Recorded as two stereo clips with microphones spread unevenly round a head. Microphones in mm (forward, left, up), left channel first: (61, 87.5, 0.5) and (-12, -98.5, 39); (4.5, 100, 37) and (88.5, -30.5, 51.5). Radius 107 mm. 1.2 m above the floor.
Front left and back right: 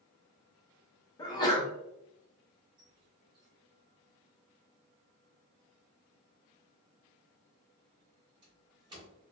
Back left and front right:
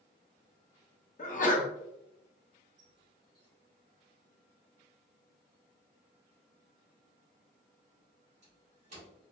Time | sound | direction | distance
1.2 | a sneeze | 130° left | 0.8 m
2.8 | a squeak | 65° right | 1.0 m